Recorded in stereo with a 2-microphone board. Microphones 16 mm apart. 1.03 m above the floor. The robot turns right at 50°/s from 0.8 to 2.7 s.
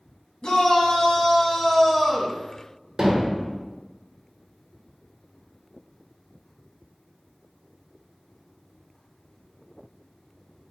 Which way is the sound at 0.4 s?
120° left.